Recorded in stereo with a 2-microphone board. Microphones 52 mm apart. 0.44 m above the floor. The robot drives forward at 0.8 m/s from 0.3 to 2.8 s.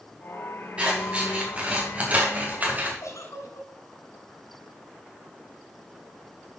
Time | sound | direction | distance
0.8 | scissors | 20° right (ahead or behind) | 4 m
3.0 | a giggle | 85° left | 1.6 m